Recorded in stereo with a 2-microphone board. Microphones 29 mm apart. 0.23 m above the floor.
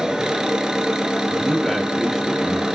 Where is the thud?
No thud in this recording.